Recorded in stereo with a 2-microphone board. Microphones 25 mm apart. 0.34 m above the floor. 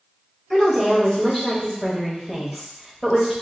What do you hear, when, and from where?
0.5 s a woman speaking: 10° left (ahead or behind), 1.2 m